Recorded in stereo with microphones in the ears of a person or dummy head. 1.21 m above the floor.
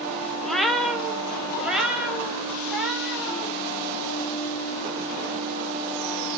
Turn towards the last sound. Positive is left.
turn(degrees=-5)  # may be behind; listen again after turning